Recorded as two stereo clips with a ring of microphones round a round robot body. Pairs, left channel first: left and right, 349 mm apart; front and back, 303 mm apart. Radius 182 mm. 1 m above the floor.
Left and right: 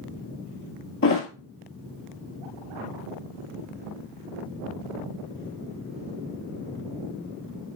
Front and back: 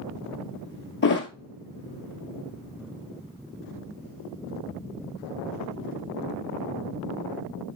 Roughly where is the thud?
Ahead left.